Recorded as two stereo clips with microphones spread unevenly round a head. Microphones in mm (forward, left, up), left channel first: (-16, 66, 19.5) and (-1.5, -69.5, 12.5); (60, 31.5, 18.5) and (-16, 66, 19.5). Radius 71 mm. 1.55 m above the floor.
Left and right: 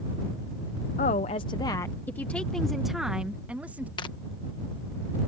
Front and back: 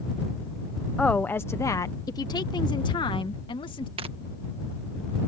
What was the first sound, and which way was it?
A woman speaking, 55° left.